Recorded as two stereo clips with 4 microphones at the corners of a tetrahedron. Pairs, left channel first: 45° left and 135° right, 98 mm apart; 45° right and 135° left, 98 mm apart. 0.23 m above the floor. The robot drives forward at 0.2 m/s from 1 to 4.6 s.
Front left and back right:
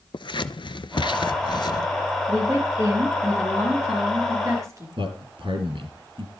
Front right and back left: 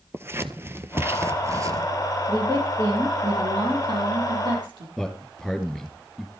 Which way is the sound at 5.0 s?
135° right.